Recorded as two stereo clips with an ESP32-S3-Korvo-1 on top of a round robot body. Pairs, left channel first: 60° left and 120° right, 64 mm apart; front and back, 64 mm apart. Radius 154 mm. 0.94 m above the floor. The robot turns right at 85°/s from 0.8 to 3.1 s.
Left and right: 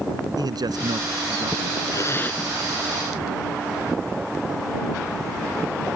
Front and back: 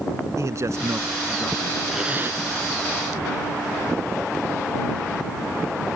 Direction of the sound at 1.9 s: 95° left.